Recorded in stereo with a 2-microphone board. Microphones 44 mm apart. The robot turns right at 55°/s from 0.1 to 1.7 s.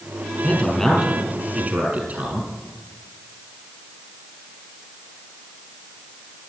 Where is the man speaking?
150° left, 5.5 m; by 2.5 s 145° right, 5.5 m.